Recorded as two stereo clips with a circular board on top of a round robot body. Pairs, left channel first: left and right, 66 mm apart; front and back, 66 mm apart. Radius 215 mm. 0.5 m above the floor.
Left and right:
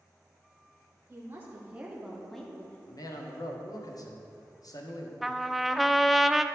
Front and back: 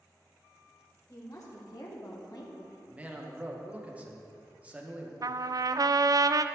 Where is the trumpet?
175° right, 0.5 m.